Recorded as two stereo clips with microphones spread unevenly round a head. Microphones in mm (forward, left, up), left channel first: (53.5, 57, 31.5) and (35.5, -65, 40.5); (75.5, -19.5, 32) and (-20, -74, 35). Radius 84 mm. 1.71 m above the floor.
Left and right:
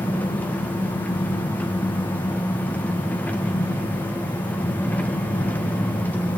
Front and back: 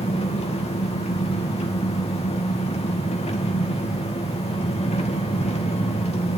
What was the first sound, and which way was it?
An engine running, 5° left.